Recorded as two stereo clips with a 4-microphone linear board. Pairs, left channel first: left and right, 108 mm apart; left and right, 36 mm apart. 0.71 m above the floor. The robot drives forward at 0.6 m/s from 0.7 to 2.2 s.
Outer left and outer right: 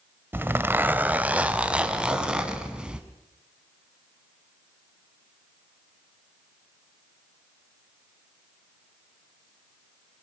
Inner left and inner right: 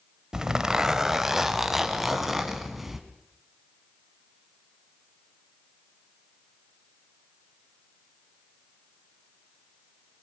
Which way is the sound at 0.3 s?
20° right (ahead or behind).